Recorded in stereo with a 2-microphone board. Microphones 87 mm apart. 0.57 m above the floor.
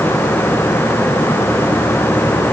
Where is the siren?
I don't hear a siren.